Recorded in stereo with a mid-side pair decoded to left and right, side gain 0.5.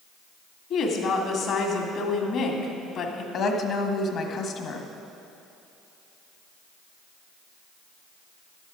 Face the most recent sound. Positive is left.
turn(degrees=60)